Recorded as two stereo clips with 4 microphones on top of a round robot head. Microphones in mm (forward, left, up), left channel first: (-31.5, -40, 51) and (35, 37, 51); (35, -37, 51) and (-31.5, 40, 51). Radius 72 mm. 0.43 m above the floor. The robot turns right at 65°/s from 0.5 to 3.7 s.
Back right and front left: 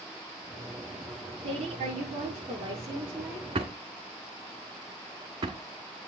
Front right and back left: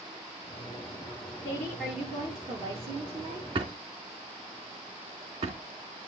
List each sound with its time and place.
1.4 s a woman speaking: 15° left, 9.5 m; by 3.5 s 145° left, 9.5 m
3.5 s a drawer: 90° left, 1.7 m; by 5.6 s 100° left, 1.7 m